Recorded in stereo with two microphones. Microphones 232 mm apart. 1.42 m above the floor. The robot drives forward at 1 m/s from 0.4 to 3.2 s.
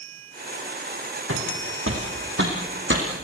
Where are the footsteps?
70° right (ahead or behind), 4.5 m; by 3.0 s 55° right (ahead or behind), 3.5 m.